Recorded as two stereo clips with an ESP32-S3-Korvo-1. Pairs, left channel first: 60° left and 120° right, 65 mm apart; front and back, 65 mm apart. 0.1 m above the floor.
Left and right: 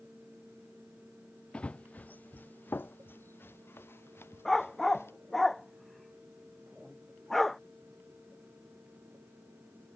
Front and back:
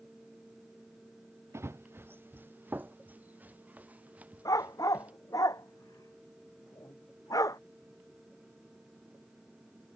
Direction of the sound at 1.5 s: 135° left.